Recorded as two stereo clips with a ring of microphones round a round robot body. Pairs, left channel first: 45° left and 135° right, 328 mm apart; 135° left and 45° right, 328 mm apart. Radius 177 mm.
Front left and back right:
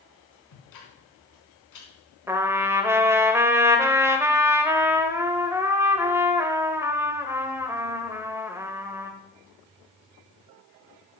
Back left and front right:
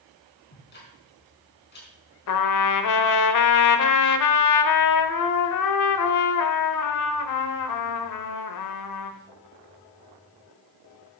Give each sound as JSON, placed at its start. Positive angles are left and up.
{"t": 0.5, "sound": "ticking", "azimuth_deg": 75, "distance_m": 4.0}
{"t": 2.3, "sound": "a trumpet", "azimuth_deg": 145, "distance_m": 1.1}